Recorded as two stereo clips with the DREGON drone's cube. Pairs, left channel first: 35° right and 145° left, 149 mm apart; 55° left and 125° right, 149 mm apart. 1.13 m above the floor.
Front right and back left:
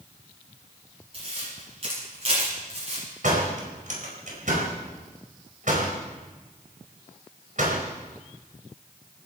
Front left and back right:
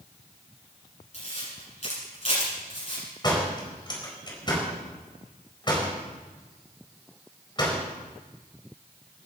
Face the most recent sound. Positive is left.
turn(degrees=115)